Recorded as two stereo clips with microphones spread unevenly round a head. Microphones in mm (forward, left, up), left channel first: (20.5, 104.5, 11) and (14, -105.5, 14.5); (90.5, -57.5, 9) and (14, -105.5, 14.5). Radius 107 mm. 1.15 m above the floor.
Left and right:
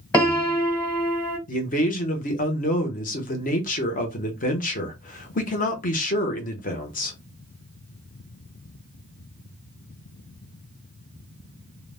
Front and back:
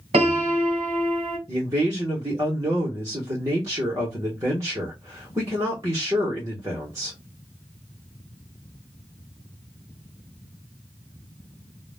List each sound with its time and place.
0.1 s a piano: 170° left, 1.1 m
1.5 s a man speaking: 140° left, 0.8 m